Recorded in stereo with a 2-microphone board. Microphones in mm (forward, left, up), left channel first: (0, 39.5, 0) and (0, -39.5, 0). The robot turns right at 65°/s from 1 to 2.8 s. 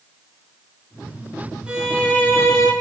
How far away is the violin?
About 6 m.